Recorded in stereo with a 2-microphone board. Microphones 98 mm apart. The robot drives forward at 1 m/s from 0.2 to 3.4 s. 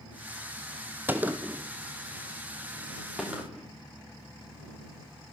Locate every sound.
1.1 s a gunshot: 20° right (ahead or behind), 1.1 m; by 3.7 s 5° right (ahead or behind), 3.5 m